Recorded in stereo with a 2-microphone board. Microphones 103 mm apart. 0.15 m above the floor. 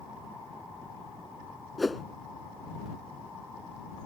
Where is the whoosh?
Centre (ahead or behind).